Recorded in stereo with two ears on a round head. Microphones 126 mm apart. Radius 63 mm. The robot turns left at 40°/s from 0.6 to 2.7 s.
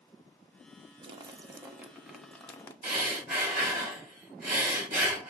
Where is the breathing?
60° right (ahead or behind), 3 m.